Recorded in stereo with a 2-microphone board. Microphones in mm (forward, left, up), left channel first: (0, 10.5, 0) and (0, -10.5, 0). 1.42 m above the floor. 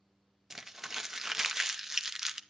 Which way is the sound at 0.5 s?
15° right (ahead or behind).